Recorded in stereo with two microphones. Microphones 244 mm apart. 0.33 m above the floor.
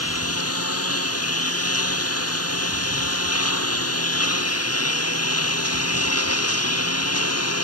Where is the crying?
I don't hear crying.